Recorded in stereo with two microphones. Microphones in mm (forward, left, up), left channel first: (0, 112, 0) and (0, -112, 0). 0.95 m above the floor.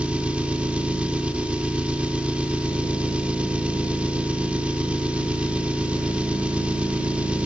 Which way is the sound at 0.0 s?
5° right (ahead or behind).